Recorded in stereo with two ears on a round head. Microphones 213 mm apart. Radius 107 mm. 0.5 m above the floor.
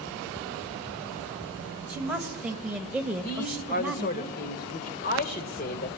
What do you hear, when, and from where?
1.9 s a woman speaking: 5° right (ahead or behind), 1.8 m
3.2 s a man speaking: 40° left (ahead or behind), 1.6 m